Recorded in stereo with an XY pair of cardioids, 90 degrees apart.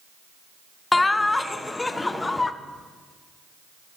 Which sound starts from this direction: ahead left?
Laughter, at 0.9 s.